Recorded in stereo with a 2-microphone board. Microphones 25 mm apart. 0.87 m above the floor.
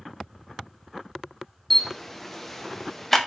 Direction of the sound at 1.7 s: 5° left (ahead or behind).